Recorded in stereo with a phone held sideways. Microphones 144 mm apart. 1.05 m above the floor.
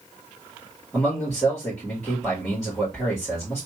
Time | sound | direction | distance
0.9 | a man speaking | 5° left (ahead or behind) | 2.5 m